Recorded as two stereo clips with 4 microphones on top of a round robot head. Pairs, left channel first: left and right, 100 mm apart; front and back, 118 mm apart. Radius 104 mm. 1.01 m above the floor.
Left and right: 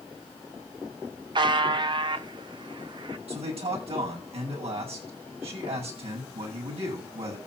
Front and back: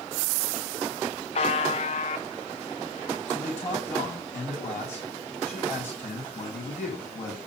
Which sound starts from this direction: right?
A man speaking, at 3.3 s.